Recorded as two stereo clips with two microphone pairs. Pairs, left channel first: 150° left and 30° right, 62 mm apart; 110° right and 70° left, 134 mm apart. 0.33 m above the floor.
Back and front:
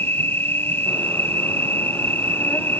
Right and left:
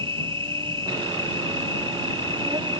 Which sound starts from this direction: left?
An insect, at 0.0 s.